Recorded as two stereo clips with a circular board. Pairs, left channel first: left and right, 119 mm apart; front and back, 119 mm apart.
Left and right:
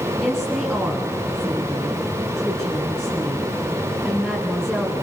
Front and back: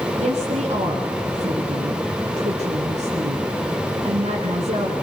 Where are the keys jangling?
I don't hear keys jangling.